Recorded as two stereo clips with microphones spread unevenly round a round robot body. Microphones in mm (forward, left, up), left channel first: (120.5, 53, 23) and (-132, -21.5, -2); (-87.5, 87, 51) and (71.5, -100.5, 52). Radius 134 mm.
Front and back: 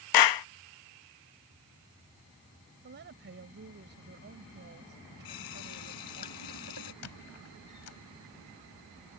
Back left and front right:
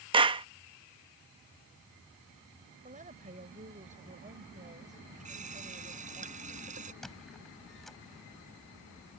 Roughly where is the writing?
No writing in this recording.